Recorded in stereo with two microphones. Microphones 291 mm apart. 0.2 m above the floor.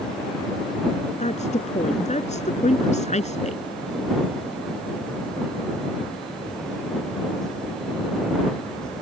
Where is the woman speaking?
25° left (ahead or behind).